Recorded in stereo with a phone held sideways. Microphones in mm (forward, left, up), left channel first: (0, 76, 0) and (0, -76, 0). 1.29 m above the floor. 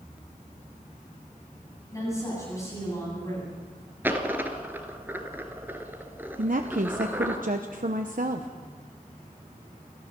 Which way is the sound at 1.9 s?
20° left (ahead or behind).